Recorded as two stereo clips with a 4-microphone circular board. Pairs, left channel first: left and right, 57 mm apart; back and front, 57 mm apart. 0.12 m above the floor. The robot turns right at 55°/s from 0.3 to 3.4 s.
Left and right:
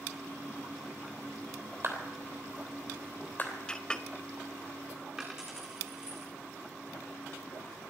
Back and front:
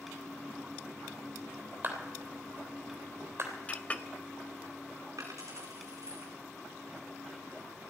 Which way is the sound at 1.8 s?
50° right.